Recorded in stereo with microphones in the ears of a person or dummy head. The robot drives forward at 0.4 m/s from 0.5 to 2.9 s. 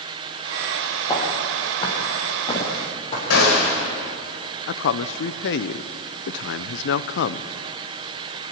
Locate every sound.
1.1 s footsteps: 25° left (ahead or behind), 4.5 m; by 3.2 s 35° left (ahead or behind), 5.5 m
3.3 s a gunshot: 80° left, 4.5 m
4.7 s a man speaking: 65° left (ahead or behind), 0.7 m